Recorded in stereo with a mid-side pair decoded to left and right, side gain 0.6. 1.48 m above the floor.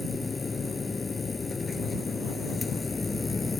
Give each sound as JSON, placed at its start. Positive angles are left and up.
{"t": 0.0, "sound": "a machine running", "azimuth_deg": 20}